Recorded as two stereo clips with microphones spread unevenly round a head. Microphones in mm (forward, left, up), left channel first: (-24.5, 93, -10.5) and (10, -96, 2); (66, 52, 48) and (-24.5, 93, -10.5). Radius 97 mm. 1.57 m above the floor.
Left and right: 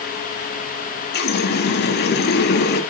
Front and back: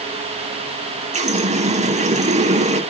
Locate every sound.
1.1 s a running tap: 135° left, 1.9 m